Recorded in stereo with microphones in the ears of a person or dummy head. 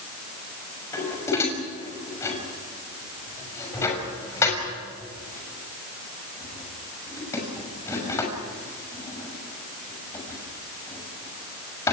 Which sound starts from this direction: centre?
Dishes clattering, at 0.9 s.